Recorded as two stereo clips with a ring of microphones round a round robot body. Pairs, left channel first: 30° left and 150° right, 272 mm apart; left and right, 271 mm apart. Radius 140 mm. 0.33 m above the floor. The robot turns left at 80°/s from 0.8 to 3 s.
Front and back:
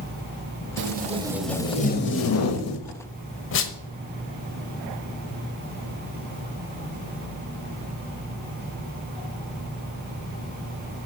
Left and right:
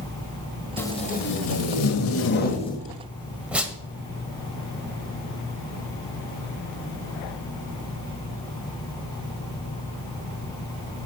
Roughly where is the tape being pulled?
Behind.